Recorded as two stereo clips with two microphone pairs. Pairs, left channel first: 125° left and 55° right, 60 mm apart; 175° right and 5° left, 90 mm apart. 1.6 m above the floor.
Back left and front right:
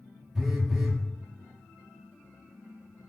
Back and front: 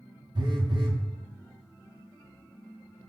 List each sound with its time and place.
0.3 s a phone buzzing: 30° left, 0.5 m